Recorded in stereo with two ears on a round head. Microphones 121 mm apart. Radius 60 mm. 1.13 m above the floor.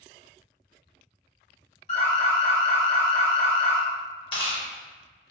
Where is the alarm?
50° left (ahead or behind), 0.9 m.